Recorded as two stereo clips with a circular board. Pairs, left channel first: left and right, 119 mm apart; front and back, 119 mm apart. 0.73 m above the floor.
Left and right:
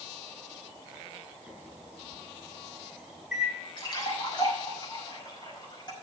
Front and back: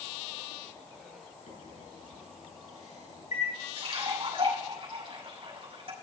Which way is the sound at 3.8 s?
140° left.